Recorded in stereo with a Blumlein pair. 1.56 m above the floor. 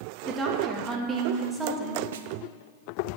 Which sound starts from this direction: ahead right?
A snare drum, at 2.1 s.